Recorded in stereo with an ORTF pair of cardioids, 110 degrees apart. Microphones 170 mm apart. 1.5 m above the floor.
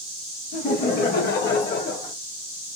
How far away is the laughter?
About 1.5 m.